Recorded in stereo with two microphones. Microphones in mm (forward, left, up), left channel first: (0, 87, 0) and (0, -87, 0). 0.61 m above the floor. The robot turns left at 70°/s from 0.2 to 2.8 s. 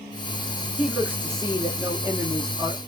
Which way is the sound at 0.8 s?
Centre (ahead or behind).